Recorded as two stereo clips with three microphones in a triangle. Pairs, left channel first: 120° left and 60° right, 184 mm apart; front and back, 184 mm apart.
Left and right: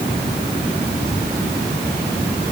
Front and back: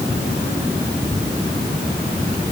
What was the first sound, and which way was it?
Only background noise.